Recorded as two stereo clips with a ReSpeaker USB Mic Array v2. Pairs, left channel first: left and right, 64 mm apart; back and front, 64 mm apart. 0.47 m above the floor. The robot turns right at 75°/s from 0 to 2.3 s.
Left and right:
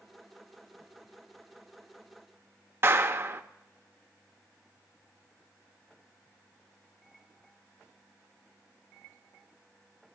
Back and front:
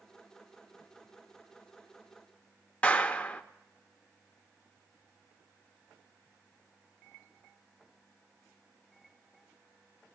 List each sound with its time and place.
2.8 s a clap: 120° right, 0.6 m